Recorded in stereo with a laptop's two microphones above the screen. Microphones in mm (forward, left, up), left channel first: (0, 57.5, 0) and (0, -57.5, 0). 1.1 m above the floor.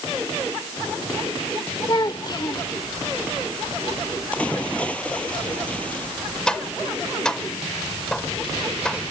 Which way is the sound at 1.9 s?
40° left (ahead or behind).